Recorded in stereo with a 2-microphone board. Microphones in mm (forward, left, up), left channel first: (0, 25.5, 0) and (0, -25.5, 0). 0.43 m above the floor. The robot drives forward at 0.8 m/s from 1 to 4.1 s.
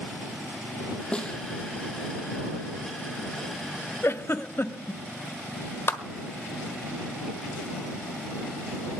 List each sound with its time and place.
1.1 s a snare drum: 20° left (ahead or behind), 1.9 m
4.0 s a giggle: 60° left (ahead or behind), 0.7 m
5.9 s a clap: 50° left (ahead or behind), 1.4 m